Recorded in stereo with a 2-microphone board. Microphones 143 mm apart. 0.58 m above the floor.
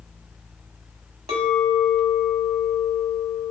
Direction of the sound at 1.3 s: 45° right (ahead or behind).